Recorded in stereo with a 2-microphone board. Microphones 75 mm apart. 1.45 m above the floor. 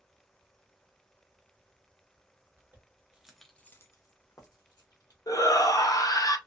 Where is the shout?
55° left (ahead or behind), 0.6 m.